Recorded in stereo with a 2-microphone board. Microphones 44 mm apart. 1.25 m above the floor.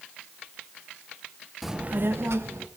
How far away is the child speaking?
About 0.6 m.